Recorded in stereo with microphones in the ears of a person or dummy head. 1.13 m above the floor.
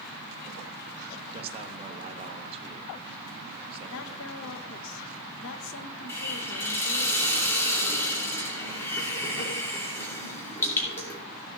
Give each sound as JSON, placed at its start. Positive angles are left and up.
{"t": 1.3, "sound": "a man speaking", "side_deg": -30, "distance_m": 1.3}
{"t": 3.9, "sound": "a woman speaking", "side_deg": 70, "distance_m": 1.0}
{"t": 6.1, "sound": "a hiss", "side_deg": 20, "distance_m": 3.0}